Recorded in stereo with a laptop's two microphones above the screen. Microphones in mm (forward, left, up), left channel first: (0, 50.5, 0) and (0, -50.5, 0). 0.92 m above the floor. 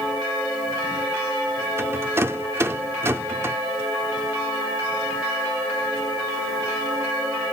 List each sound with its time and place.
1.8 s a rattle: 25° right (ahead or behind), 0.6 m